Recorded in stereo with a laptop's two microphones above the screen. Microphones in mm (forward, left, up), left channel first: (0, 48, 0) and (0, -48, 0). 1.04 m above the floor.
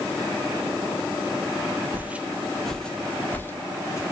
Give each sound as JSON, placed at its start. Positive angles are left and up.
{"t": 1.9, "sound": "footsteps", "side_deg": -20, "distance_m": 1.1}